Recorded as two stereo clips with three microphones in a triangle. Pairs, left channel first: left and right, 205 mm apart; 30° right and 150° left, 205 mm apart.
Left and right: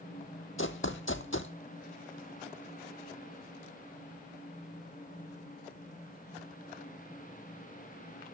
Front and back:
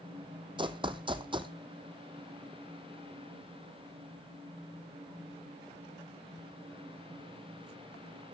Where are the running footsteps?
90° left, 0.5 m.